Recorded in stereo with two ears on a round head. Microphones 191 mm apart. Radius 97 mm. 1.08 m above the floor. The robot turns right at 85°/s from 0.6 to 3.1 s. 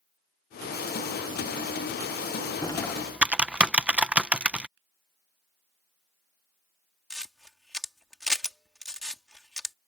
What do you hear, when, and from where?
2.6 s typing on a keyboard: 20° left (ahead or behind); by 4.7 s 5° right (ahead or behind)
4.8 s a finger snap: 60° right (ahead or behind)
7.1 s a camera shutter: centre (ahead or behind)